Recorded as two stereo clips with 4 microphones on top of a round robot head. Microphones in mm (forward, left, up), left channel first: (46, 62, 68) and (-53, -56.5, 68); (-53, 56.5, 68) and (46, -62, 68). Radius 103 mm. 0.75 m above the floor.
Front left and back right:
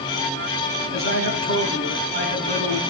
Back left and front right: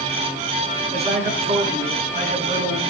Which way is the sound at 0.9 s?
100° right.